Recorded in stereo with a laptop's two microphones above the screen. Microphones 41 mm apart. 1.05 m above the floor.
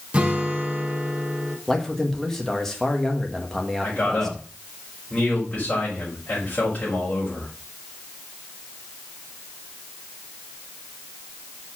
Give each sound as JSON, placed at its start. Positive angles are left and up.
{"t": 0.1, "sound": "a guitar", "side_deg": -30, "distance_m": 1.1}
{"t": 1.7, "sound": "a man speaking", "side_deg": 10, "distance_m": 1.4}
{"t": 3.8, "sound": "a man speaking", "side_deg": 35, "distance_m": 5.0}